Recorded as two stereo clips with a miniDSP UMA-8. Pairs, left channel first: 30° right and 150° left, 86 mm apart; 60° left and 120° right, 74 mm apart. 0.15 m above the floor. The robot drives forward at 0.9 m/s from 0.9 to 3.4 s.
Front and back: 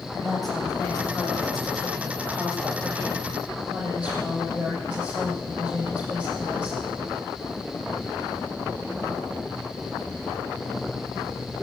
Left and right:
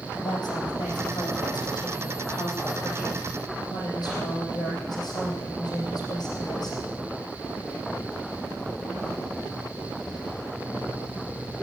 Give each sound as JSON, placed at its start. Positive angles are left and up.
{"t": 0.1, "sound": "a woman speaking", "azimuth_deg": 55, "distance_m": 7.5}